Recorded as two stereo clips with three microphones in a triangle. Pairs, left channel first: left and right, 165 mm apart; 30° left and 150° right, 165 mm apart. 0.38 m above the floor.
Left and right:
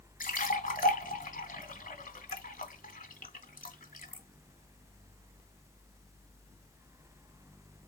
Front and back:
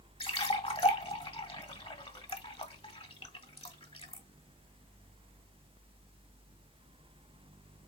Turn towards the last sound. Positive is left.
turn(degrees=75)